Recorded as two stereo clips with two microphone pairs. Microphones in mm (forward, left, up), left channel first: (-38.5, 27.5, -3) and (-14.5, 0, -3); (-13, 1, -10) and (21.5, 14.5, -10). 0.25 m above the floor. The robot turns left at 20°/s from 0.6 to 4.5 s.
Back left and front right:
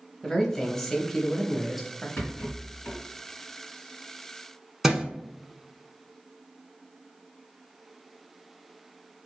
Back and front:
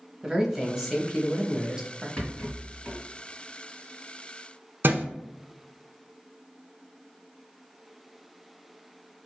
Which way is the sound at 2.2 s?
145° left.